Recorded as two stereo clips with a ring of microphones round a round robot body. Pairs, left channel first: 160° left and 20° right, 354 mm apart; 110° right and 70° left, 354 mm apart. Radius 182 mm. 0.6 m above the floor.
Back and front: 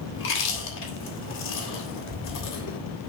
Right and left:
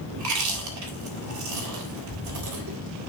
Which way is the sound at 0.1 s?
105° left.